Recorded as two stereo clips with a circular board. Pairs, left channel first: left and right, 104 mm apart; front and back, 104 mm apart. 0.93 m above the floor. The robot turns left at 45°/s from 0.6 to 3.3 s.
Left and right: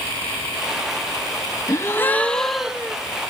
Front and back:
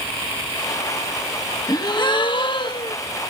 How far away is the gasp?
About 1.3 m.